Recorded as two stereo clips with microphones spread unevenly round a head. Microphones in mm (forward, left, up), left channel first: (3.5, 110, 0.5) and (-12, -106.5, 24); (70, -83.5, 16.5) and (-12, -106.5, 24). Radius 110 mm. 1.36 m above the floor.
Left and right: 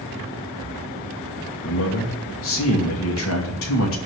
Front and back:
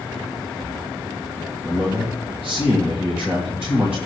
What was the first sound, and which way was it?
A man speaking, 110° left.